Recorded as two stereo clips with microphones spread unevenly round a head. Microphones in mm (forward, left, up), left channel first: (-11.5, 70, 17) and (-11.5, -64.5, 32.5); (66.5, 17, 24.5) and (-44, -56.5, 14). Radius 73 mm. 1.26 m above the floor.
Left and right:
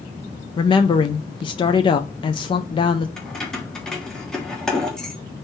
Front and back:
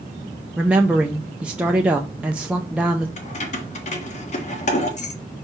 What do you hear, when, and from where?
0.6 s a woman speaking: 135° left, 0.6 m
3.2 s keys jangling: straight ahead, 1.4 m